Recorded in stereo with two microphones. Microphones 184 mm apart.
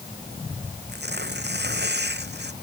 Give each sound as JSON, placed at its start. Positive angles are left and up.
{"t": 0.9, "sound": "tearing paper", "side_deg": -65}